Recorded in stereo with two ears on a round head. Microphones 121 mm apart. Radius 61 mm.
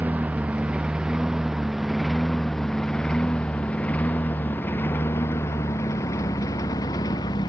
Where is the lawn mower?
10° right (ahead or behind); by 7.5 s 30° left (ahead or behind).